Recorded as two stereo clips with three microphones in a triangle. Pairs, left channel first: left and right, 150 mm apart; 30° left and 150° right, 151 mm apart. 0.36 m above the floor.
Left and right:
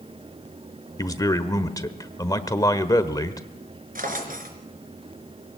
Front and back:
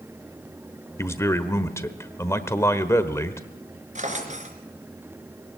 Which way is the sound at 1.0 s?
70° left.